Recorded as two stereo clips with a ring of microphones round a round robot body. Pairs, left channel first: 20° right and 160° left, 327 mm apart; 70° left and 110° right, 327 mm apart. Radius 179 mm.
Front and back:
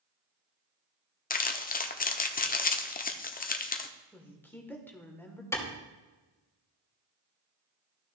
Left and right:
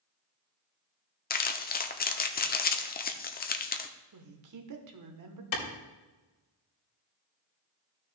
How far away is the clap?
About 2.5 m.